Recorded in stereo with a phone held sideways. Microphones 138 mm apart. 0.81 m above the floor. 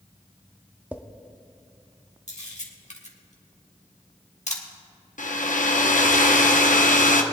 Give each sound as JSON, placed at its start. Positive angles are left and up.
{"t": 0.9, "sound": "a drawer", "side_deg": -15, "distance_m": 0.6}
{"t": 2.3, "sound": "a camera shutter", "side_deg": 60, "distance_m": 1.6}
{"t": 5.2, "sound": "a hair dryer", "side_deg": 75, "distance_m": 0.8}